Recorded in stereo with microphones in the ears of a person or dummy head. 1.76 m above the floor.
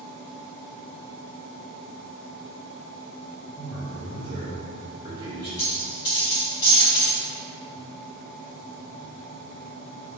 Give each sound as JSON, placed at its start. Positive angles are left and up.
{"t": 3.5, "sound": "a man speaking", "side_deg": -20, "distance_m": 1.1}
{"t": 5.6, "sound": "a dropped coin", "side_deg": 20, "distance_m": 1.1}